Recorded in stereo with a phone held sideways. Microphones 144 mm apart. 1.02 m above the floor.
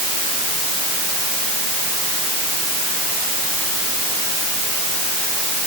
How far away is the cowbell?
No cowbell in this recording.